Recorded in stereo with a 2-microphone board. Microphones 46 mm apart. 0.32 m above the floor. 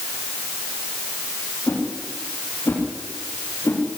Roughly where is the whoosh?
Left.